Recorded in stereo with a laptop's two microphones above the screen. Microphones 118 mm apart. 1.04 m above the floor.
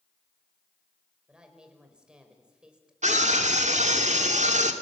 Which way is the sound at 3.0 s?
85° right.